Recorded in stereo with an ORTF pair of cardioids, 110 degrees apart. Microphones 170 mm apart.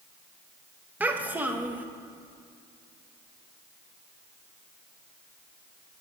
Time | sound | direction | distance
1.0 | a child speaking | 10° right | 0.7 m